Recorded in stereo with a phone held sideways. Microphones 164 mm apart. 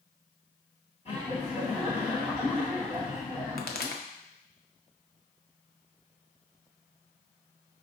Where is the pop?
75° left (ahead or behind), 0.6 m.